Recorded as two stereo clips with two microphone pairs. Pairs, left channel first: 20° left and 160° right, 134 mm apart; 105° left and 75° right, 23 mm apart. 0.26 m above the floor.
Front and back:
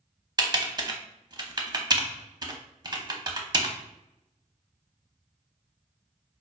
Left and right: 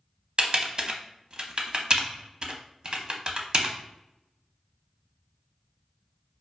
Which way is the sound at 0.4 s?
110° right.